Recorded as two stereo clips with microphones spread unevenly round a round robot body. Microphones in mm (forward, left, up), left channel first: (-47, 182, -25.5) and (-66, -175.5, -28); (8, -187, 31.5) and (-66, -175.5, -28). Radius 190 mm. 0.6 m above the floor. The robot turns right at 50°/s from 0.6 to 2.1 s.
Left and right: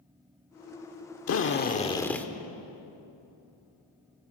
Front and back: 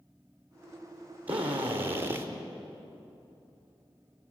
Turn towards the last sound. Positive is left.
turn(degrees=170)